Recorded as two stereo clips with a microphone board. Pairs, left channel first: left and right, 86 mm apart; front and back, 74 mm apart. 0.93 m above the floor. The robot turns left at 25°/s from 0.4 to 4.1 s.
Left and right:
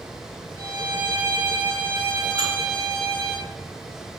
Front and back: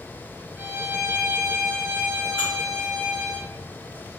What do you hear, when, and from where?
0.6 s a violin: 120° right, 1.3 m; by 3.4 s 170° left, 1.3 m
2.4 s dishes clattering: 130° right, 1.3 m